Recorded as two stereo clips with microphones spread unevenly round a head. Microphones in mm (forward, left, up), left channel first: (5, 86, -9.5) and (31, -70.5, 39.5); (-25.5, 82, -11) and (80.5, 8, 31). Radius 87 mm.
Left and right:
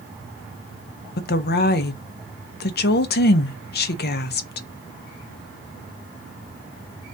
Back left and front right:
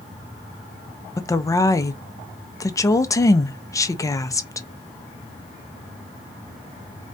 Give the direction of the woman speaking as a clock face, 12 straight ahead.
9 o'clock.